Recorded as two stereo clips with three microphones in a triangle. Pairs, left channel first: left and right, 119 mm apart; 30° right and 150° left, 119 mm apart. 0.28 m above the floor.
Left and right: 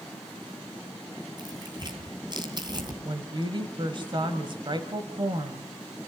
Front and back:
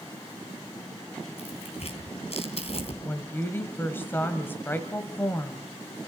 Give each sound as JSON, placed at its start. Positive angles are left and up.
{"t": 1.4, "sound": "tearing paper", "azimuth_deg": -45, "distance_m": 2.5}
{"t": 3.0, "sound": "a woman speaking", "azimuth_deg": -95, "distance_m": 1.5}